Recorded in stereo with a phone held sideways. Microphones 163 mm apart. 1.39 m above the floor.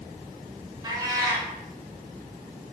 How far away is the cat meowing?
About 1.0 m.